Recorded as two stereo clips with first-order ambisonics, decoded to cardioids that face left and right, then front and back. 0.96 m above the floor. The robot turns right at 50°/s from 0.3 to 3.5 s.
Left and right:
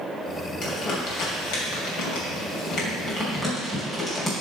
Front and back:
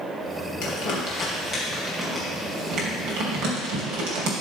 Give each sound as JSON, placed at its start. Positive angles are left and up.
{"t": 0.6, "sound": "crumpling", "azimuth_deg": 25, "distance_m": 3.0}